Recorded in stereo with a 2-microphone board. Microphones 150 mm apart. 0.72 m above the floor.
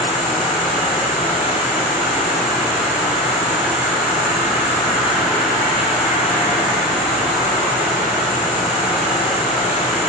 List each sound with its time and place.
0.0 s an insect: centre (ahead or behind), 5 m